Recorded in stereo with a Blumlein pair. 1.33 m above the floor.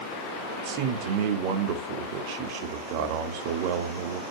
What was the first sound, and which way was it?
A man speaking, 45° right.